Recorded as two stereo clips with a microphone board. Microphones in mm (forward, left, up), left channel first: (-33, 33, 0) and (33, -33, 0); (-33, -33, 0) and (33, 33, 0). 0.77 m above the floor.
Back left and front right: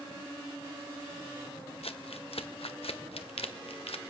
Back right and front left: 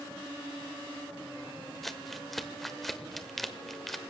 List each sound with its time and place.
1.8 s crumpling: 135° left, 1.0 m